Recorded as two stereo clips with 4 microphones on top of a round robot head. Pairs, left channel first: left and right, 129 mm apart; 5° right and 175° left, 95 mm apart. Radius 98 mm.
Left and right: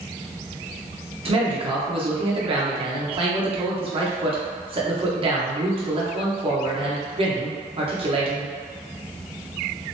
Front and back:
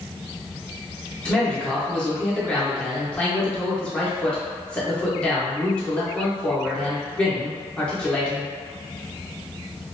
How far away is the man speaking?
About 0.8 m.